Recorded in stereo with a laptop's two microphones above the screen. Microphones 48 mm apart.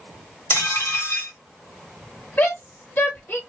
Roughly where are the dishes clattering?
Left.